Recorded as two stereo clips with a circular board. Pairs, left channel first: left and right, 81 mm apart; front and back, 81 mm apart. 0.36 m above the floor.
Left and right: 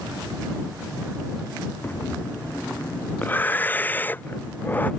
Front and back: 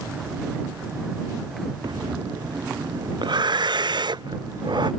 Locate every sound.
1.8 s breathing: 155° left